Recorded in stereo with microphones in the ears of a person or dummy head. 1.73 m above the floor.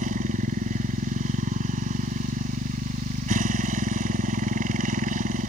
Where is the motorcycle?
40° right (ahead or behind).